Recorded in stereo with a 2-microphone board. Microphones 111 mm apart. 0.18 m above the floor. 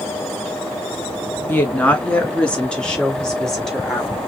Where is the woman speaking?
15° left (ahead or behind), 1.4 m; by 4.2 s centre (ahead or behind), 3 m.